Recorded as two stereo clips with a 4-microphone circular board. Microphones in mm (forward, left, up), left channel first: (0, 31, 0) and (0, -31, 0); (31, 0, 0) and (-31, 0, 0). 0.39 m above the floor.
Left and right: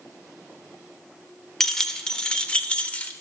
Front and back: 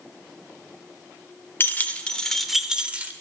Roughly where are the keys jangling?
Ahead.